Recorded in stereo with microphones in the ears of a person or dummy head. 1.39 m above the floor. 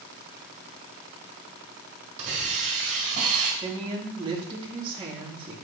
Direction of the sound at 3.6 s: 30° right (ahead or behind).